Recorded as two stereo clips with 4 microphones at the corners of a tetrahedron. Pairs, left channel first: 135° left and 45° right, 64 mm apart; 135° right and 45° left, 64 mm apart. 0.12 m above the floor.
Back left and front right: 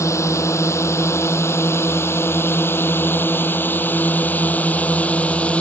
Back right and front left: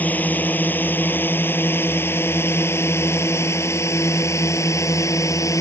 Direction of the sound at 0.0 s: 165° left.